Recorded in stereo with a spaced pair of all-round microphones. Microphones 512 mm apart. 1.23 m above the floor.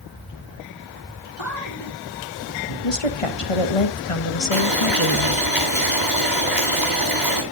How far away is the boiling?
About 8 m.